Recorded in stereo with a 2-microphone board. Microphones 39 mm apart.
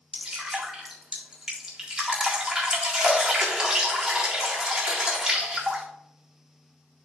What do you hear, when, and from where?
0.1 s dripping: 15° right (ahead or behind), 1.8 m